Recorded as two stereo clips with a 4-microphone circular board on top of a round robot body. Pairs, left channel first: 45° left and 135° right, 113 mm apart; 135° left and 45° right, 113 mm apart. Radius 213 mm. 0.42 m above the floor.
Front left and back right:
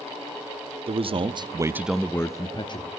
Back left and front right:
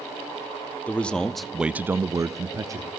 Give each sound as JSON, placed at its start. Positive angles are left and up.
{"t": 0.9, "sound": "a man speaking", "azimuth_deg": -150, "distance_m": 1.3}